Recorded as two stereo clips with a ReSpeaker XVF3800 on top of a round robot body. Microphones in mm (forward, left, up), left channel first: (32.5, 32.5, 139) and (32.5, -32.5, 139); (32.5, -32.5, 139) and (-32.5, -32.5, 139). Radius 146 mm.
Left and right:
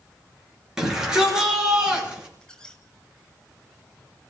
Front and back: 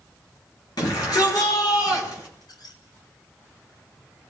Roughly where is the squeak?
Ahead.